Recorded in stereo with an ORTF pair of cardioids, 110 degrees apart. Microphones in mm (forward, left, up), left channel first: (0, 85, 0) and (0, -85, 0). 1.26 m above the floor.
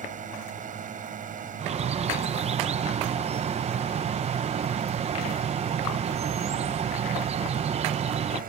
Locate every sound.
0.0 s a drone: 50° right; by 8.5 s 55° right
1.6 s a bird: 40° right